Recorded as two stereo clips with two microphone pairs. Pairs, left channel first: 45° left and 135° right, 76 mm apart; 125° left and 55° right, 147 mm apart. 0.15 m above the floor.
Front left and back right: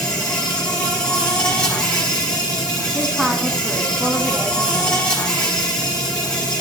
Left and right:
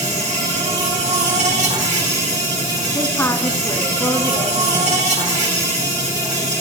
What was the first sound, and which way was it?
An insect, 30° right.